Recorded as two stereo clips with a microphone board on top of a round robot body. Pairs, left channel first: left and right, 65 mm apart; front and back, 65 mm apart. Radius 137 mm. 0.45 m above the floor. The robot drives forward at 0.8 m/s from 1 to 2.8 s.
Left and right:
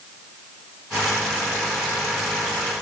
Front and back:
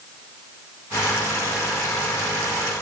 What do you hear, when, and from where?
Only background noise.